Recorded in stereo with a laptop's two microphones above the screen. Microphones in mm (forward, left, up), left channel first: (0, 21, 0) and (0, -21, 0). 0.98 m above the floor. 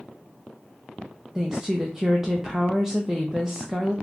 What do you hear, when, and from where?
1.4 s a woman speaking: 15° right (ahead or behind), 0.5 m